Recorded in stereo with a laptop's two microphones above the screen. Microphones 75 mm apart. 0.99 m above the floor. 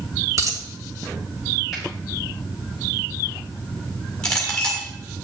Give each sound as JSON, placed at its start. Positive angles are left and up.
{"t": 0.4, "sound": "a dropped coin", "side_deg": -50, "distance_m": 1.6}
{"t": 1.7, "sound": "a finger snap", "side_deg": -5, "distance_m": 5.0}
{"t": 4.2, "sound": "a clink", "side_deg": 10, "distance_m": 1.8}